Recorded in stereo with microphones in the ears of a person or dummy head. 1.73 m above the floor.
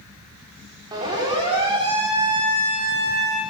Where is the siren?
20° right (ahead or behind), 7.5 m; by 3.4 s 30° right (ahead or behind), 9 m.